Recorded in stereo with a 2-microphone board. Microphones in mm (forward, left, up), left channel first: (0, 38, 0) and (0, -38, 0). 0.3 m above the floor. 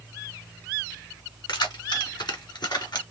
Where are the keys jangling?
70° left (ahead or behind), 2.0 m; by 3.0 s 65° left (ahead or behind), 2.5 m.